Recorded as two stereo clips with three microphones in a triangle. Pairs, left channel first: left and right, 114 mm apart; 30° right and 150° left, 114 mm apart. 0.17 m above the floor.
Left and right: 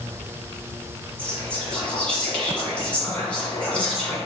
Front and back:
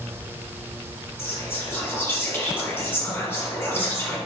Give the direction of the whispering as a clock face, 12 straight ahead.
11 o'clock.